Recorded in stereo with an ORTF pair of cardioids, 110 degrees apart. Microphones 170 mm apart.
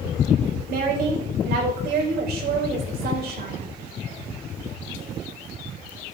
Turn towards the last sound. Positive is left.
turn(degrees=-65)